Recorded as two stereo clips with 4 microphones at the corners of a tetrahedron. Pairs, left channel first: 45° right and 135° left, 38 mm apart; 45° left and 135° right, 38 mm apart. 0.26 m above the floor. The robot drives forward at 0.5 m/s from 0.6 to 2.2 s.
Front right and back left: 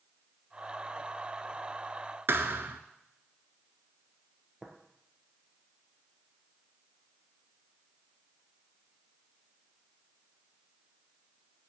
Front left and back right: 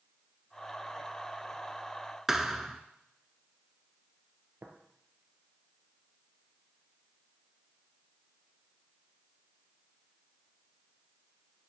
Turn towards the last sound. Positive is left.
turn(degrees=-145)